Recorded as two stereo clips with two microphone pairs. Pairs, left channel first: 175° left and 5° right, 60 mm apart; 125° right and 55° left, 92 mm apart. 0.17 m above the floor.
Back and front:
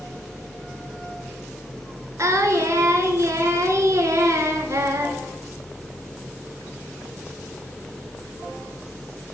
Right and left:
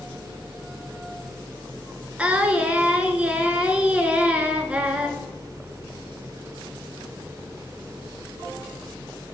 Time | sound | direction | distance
2.2 | singing | 20° right | 0.7 m